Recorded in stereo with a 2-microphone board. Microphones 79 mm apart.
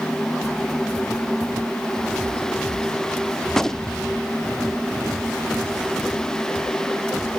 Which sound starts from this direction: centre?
A gunshot, at 3.5 s.